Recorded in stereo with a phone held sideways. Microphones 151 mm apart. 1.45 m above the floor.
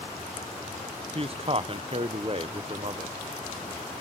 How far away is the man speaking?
About 0.7 m.